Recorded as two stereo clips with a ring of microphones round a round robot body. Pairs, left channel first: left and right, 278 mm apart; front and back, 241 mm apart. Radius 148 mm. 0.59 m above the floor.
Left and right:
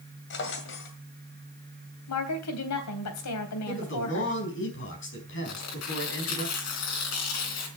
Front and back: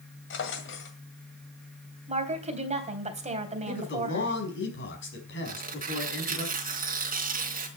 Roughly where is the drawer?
Ahead left.